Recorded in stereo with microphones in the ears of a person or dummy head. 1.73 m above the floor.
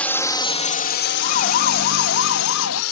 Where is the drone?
10° left (ahead or behind); by 2.9 s 80° left.